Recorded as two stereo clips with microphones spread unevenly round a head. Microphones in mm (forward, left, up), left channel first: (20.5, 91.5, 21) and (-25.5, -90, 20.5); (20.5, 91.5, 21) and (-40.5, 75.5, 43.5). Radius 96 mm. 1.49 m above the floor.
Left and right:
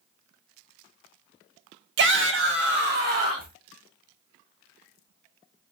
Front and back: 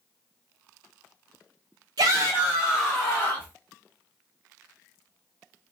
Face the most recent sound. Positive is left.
turn(degrees=-60)